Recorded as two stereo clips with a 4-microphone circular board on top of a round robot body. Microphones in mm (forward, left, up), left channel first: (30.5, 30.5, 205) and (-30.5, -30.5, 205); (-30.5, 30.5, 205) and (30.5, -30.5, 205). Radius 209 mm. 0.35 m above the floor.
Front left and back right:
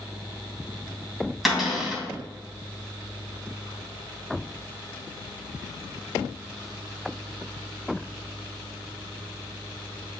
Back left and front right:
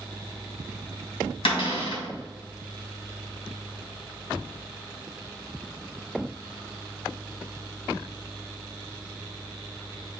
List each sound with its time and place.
1.4 s a cupboard door: 135° left, 3 m